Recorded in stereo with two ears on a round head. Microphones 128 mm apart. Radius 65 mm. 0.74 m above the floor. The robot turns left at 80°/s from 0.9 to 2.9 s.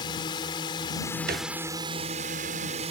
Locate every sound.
0.0 s a drone: 40° left; by 2.9 s 120° right
1.3 s a thud: 80° right; by 1.5 s 60° right (ahead or behind)